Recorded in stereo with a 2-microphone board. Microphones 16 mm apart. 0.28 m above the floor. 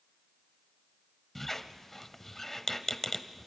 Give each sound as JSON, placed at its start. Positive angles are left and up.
{"t": 1.4, "sound": "a squeak", "side_deg": 20, "distance_m": 0.8}